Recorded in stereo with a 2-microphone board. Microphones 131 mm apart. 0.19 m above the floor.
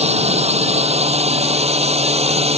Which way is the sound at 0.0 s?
55° right (ahead or behind).